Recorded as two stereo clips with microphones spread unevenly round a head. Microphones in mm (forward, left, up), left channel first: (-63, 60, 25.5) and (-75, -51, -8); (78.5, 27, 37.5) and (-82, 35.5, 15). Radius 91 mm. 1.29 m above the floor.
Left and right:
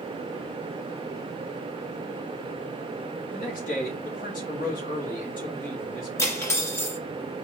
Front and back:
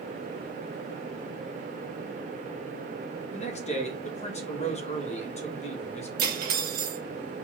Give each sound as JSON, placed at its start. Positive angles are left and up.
{"t": 3.3, "sound": "a man speaking", "azimuth_deg": 45, "distance_m": 1.6}
{"t": 6.2, "sound": "cutlery clinking", "azimuth_deg": 145, "distance_m": 1.4}